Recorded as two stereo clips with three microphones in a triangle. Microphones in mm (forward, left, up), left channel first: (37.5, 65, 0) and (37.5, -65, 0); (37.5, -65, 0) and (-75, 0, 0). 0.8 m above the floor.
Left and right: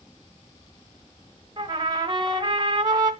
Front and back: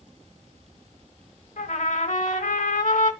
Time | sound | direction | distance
1.6 | a trumpet | 35° right | 1.5 m